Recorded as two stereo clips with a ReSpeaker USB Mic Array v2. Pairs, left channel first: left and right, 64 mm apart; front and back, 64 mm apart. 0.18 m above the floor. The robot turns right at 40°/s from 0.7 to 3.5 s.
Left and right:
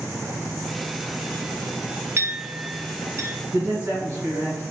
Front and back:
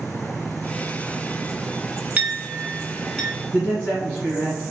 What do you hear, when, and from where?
2.2 s a clink: 120° right, 0.9 m; by 3.3 s 75° right, 0.9 m
3.5 s a man speaking: 70° right, 1.5 m